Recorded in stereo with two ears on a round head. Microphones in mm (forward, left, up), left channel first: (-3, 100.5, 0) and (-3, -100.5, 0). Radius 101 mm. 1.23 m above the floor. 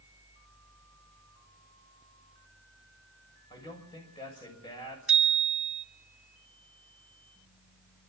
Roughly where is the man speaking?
Left.